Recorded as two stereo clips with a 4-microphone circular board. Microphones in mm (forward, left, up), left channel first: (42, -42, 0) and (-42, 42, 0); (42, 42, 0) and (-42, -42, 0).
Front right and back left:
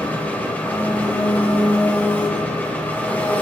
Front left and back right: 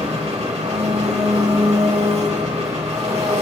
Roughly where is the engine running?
Behind right.